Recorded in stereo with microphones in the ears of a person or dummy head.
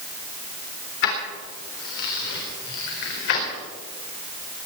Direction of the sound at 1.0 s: 65° left (ahead or behind).